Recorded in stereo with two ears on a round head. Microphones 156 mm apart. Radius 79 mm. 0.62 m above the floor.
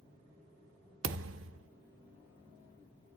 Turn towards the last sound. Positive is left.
turn(degrees=-85)